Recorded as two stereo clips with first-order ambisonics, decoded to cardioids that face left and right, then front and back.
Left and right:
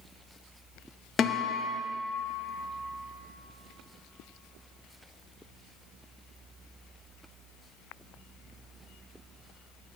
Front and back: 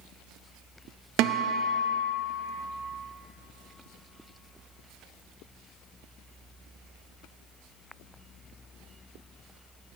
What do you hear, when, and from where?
1.2 s a guitar: 155° left, 0.6 m